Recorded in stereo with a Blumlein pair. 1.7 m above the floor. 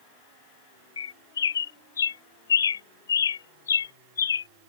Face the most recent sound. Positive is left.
turn(degrees=70)